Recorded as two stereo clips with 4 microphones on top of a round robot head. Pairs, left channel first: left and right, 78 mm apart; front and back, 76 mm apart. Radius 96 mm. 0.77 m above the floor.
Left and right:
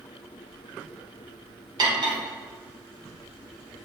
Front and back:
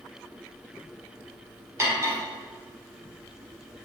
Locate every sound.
1.8 s cutlery clinking: 120° right, 1.6 m